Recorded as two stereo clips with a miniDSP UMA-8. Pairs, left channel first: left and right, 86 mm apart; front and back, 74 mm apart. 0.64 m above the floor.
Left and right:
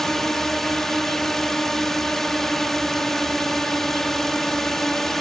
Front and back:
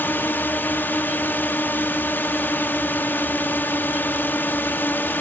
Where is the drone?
10° left.